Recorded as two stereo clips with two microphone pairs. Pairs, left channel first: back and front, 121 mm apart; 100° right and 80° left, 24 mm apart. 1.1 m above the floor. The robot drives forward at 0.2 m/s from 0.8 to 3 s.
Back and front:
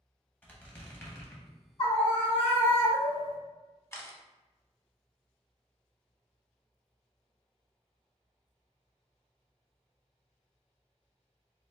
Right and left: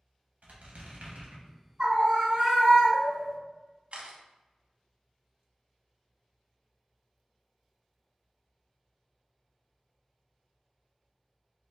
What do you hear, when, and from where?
0.4 s a squeak: 105° left, 0.9 m; by 1.5 s 115° left, 0.9 m
1.8 s a scream: 140° left, 1.6 m; by 3.4 s 145° left, 1.8 m
3.9 s a camera shutter: 115° left, 0.7 m